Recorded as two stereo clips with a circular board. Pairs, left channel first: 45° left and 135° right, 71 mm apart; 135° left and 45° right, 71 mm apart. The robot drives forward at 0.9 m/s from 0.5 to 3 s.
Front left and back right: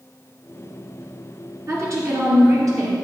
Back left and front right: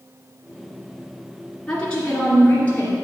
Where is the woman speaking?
150° right, 2 m; by 3.0 s 165° right, 3 m.